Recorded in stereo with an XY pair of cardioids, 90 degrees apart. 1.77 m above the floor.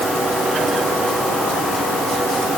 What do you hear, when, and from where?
Only background noise.